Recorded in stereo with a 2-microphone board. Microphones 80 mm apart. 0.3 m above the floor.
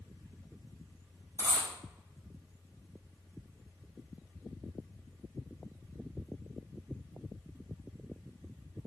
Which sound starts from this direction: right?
A dropped coin, at 1.4 s.